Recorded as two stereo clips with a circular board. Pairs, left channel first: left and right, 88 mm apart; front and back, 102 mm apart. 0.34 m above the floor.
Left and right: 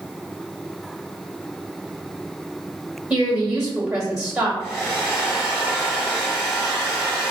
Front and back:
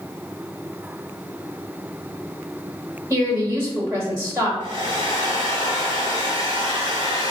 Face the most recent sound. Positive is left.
turn(degrees=145)